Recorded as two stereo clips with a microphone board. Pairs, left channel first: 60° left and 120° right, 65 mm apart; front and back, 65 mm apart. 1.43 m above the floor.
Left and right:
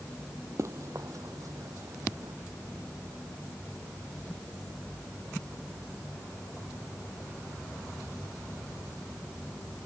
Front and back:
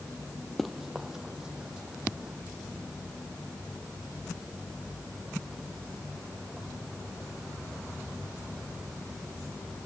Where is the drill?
No drill in this recording.